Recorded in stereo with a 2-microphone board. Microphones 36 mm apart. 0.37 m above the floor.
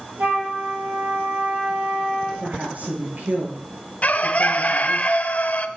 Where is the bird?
45° left (ahead or behind), 0.6 m.